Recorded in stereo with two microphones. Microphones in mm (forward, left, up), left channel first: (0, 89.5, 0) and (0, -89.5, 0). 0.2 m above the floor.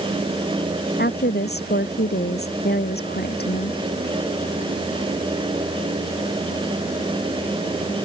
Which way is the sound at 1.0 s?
70° left (ahead or behind).